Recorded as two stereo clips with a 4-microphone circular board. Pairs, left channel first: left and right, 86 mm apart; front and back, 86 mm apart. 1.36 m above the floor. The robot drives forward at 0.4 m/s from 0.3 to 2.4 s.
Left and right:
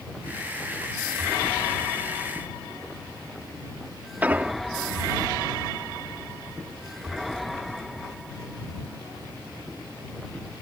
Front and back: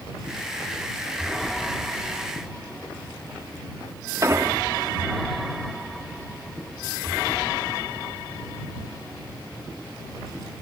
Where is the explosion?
150° right.